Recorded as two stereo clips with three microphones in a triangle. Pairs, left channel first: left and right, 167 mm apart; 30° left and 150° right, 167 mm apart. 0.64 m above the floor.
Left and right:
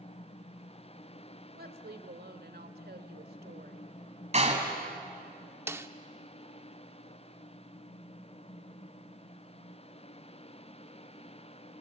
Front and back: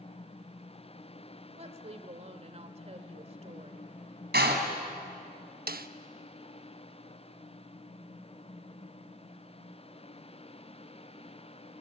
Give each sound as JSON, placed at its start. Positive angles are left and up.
{"t": 1.6, "sound": "a woman speaking", "azimuth_deg": -100, "distance_m": 1.9}
{"t": 4.3, "sound": "a door slam", "azimuth_deg": -140, "distance_m": 3.0}
{"t": 5.7, "sound": "a snare drum", "azimuth_deg": -165, "distance_m": 0.7}